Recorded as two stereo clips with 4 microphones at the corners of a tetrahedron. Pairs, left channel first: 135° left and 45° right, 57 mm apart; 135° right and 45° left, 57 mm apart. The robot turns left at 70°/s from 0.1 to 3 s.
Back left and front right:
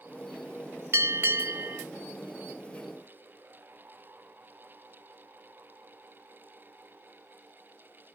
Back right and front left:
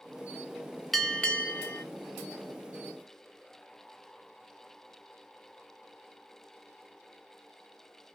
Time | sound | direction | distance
0.9 | a bell | 45° right | 0.6 m